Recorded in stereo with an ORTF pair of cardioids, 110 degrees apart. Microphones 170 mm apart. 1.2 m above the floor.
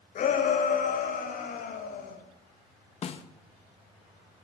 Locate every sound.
0.1 s a shout: 55° left, 7 m; by 2.2 s 60° left, 8 m
3.0 s a snare drum: 40° left, 1.7 m